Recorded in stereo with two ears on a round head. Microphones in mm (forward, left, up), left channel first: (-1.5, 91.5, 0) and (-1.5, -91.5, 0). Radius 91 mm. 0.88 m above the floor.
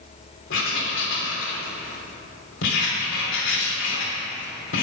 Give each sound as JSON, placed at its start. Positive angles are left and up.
{"t": 0.5, "sound": "writing", "side_deg": 65, "distance_m": 3.0}